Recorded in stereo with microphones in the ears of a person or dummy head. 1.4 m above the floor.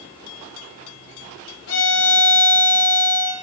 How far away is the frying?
I don't hear frying.